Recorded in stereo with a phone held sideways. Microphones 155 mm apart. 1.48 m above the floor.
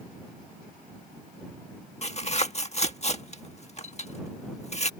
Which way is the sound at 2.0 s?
45° left (ahead or behind).